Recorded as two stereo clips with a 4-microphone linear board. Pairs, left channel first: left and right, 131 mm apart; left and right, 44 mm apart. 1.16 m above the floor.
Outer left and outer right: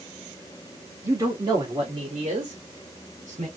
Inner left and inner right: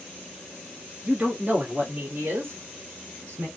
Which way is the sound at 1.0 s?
20° right (ahead or behind).